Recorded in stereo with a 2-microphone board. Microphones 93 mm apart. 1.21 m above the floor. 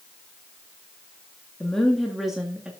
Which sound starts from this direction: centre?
A woman speaking, at 1.6 s.